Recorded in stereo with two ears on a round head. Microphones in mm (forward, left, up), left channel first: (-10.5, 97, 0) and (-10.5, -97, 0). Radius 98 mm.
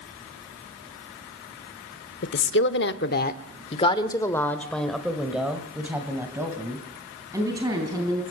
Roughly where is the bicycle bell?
I don't hear a bicycle bell.